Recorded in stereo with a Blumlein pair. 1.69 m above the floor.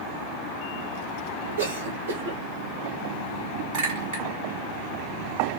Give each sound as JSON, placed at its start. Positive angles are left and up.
{"t": 1.6, "sound": "a cough", "azimuth_deg": -60, "distance_m": 1.7}
{"t": 3.7, "sound": "a clink", "azimuth_deg": -45, "distance_m": 1.8}